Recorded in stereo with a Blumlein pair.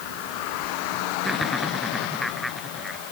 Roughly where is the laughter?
Ahead.